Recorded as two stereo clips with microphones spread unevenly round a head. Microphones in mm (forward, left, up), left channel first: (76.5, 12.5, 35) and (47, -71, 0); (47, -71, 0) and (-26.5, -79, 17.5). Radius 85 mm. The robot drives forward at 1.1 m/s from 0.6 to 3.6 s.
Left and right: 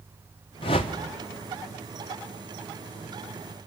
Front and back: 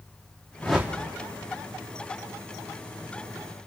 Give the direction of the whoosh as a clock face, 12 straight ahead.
9 o'clock.